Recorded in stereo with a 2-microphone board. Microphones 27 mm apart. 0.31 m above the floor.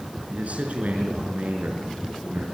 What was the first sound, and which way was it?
A man speaking, 55° right (ahead or behind).